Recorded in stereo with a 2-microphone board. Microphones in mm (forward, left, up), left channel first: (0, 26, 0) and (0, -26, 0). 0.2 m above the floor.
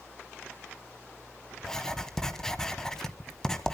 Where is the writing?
10° left (ahead or behind), 1.2 m.